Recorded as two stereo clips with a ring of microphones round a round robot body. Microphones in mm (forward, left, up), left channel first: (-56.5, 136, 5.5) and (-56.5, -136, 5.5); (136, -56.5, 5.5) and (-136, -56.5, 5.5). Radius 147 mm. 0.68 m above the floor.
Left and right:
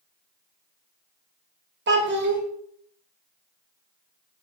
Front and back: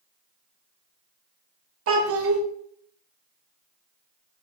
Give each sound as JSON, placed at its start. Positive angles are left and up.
{"t": 1.9, "sound": "a child speaking", "azimuth_deg": -140, "distance_m": 1.4}